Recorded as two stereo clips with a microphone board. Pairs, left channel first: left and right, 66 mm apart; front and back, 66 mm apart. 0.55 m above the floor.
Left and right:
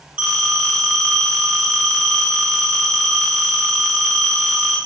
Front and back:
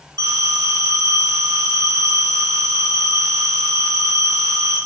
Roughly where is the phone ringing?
Behind.